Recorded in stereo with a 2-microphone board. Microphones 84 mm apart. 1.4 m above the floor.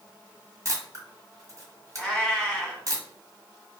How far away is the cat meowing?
About 0.9 m.